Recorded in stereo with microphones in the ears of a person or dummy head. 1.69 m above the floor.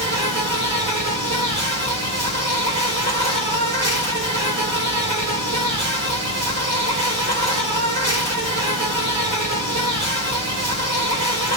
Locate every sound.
0.0 s an insect: 45° right (ahead or behind), 1.7 m